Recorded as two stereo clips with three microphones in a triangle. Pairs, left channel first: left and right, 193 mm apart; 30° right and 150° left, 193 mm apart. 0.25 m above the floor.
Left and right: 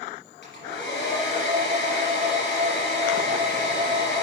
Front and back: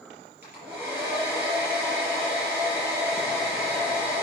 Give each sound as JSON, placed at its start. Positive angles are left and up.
{"t": 0.4, "sound": "a hair dryer", "azimuth_deg": 75, "distance_m": 4.5}